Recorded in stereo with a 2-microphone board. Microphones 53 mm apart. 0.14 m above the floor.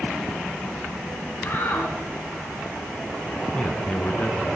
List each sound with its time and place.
1.4 s a shout: 45° left (ahead or behind), 3.5 m
3.5 s a man speaking: 20° left (ahead or behind), 1.7 m